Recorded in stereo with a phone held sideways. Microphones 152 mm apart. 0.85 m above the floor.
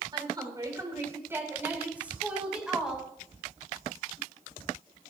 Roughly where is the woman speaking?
Right.